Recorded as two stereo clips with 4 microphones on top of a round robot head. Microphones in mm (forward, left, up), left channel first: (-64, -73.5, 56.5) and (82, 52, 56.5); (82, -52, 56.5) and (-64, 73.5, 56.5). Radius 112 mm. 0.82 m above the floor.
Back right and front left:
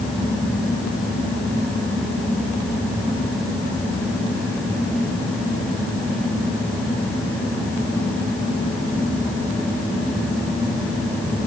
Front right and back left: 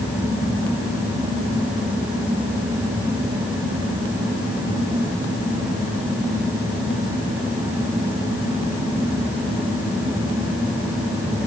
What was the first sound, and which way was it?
Only background noise.